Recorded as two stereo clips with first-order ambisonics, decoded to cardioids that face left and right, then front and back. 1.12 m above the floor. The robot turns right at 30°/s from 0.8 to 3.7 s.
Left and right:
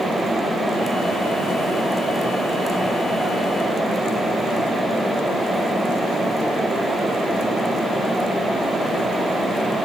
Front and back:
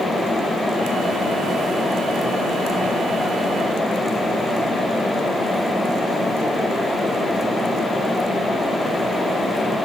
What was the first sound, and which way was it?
Only background noise.